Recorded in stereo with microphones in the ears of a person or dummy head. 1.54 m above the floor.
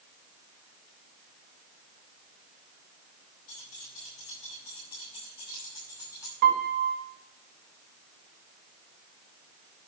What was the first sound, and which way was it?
Keys jangling, 40° left (ahead or behind).